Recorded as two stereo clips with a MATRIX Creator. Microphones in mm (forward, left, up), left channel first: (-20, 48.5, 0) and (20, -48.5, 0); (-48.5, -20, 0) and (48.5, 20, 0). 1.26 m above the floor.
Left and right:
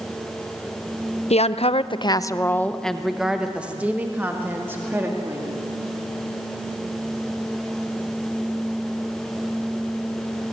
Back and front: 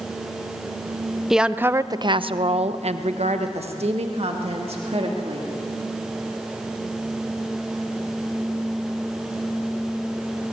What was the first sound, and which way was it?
A woman speaking, 110° left.